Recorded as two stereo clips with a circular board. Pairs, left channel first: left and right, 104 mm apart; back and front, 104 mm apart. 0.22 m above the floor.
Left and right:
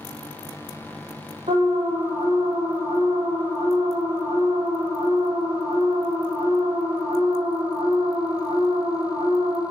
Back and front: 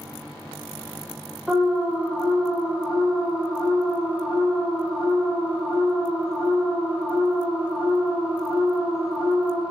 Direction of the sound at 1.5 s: 85° right.